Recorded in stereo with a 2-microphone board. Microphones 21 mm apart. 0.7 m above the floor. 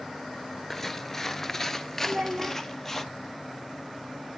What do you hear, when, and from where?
0.7 s footsteps: 10° left (ahead or behind), 0.7 m; by 3.0 s 15° left (ahead or behind), 1.1 m
2.0 s a child speaking: 65° right (ahead or behind), 1.4 m